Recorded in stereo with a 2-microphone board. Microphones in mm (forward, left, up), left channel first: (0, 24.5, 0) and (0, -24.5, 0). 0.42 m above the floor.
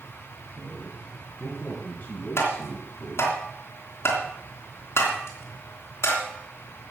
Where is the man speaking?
15° left (ahead or behind), 4 m; by 3.3 s 45° left (ahead or behind), 4 m.